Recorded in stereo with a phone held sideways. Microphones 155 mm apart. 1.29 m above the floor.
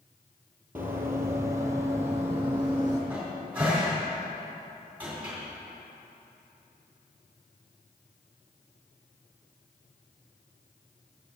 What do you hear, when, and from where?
0.8 s running footsteps: 10° right (ahead or behind), 1.3 m; by 3.0 s 15° right (ahead or behind), 2.5 m
3.1 s a cupboard door: 10° right (ahead or behind), 3 m